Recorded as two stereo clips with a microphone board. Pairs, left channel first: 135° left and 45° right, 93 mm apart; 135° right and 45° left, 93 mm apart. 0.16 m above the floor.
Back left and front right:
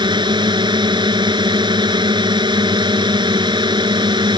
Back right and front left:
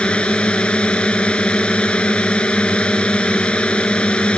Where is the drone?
60° right.